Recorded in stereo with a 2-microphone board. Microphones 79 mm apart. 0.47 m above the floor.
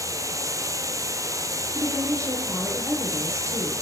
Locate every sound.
0.0 s running water: 45° right (ahead or behind), 2.5 m
1.8 s a woman speaking: 40° right (ahead or behind), 10 m